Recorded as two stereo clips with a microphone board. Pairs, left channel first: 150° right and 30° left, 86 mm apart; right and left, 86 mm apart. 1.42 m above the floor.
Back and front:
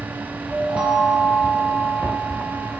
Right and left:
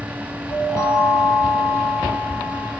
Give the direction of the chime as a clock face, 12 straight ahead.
2 o'clock.